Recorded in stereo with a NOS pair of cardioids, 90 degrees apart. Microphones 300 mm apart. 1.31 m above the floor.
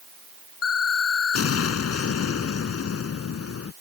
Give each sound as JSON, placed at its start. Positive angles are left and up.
{"t": 0.6, "sound": "an explosion", "azimuth_deg": 55}